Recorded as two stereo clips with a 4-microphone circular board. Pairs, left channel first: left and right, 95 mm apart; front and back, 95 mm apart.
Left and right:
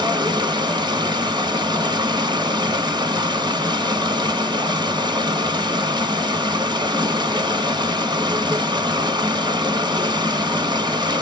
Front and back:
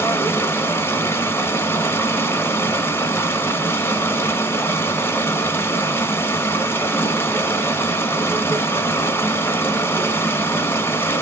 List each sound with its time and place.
0.0 s running water: 65° right, 1.2 m